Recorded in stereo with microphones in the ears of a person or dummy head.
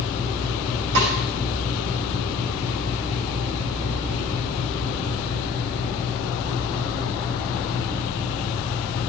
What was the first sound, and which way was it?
A snare drum, 80° right.